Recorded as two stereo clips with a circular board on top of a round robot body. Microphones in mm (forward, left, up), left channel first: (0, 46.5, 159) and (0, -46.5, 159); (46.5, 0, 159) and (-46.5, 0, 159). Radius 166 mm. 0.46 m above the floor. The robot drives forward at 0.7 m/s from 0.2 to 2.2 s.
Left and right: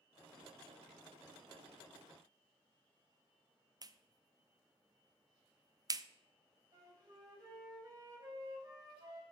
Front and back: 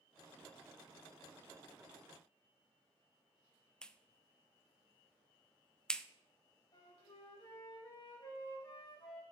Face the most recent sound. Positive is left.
turn(degrees=-45)